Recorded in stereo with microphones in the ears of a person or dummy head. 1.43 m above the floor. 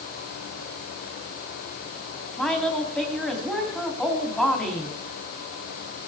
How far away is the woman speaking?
About 3 m.